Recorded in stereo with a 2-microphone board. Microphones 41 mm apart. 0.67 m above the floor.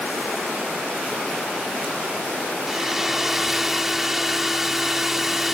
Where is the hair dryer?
10° right (ahead or behind).